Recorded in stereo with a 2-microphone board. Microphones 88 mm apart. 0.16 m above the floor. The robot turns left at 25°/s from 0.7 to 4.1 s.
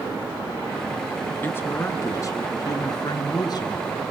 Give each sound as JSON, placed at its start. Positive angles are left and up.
{"t": 1.4, "sound": "a woman speaking", "azimuth_deg": 145, "distance_m": 2.0}